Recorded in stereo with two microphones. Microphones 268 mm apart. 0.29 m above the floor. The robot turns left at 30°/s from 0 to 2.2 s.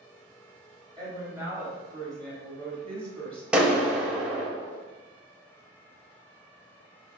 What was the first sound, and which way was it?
A woman speaking, 150° right.